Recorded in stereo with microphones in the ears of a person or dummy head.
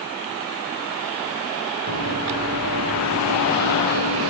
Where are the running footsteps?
70° right (ahead or behind), 5 m.